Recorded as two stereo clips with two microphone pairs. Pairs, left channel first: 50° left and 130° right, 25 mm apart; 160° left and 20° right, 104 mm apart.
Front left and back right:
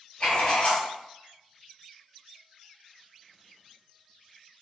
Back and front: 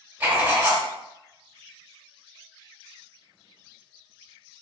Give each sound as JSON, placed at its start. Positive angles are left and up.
{"t": 0.2, "sound": "writing", "azimuth_deg": 35, "distance_m": 1.8}